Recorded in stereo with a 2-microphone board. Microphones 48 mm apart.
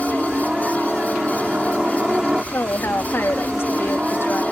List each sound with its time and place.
0.0 s a helicopter: 15° right (ahead or behind)
2.5 s a woman speaking: 50° left (ahead or behind)